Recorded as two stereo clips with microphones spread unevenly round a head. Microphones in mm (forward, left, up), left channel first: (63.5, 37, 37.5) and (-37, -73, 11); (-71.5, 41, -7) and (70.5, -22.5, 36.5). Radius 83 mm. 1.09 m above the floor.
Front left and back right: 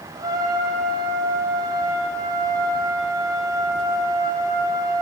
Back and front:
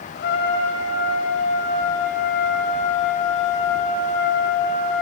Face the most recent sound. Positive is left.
turn(degrees=160)